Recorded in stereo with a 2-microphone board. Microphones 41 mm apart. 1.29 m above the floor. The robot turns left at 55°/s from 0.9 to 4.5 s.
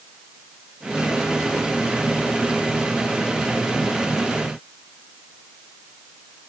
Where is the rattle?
No rattle in this recording.